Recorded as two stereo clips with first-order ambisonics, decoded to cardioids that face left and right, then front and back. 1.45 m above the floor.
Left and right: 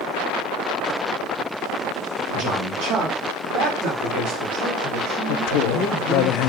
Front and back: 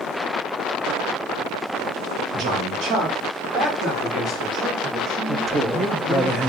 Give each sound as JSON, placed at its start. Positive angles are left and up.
{"t": 2.3, "sound": "a man speaking", "azimuth_deg": -145, "distance_m": 1.9}
{"t": 5.3, "sound": "a man speaking", "azimuth_deg": 105, "distance_m": 0.7}